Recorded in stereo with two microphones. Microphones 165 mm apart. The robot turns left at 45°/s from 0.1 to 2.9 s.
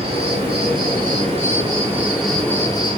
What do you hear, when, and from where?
0.0 s an insect: 80° right, 1.5 m; by 3.0 s 150° left, 1.5 m